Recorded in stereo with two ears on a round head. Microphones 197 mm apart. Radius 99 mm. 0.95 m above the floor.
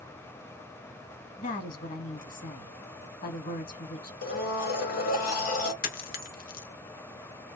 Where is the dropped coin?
40° left (ahead or behind), 0.7 m.